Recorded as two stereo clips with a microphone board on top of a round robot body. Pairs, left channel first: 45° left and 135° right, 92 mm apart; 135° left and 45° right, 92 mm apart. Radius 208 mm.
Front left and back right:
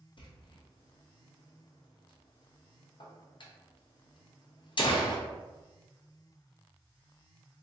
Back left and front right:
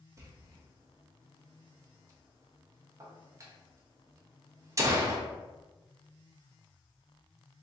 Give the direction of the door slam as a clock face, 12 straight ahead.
12 o'clock.